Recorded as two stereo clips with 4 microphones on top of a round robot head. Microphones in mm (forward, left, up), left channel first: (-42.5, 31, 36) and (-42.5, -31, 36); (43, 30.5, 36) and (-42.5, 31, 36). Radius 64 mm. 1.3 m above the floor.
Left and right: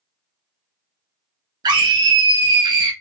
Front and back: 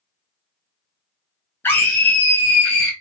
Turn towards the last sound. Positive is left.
turn(degrees=-70)